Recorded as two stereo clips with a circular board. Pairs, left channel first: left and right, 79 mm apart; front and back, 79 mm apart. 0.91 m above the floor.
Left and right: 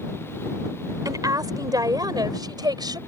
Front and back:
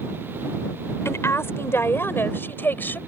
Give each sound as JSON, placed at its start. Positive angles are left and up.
{"t": 1.1, "sound": "a woman speaking", "azimuth_deg": -55}